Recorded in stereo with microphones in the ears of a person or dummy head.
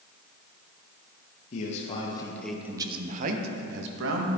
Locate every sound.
1.5 s a man speaking: 45° left (ahead or behind), 1.3 m; by 4.3 s 75° right (ahead or behind), 1.6 m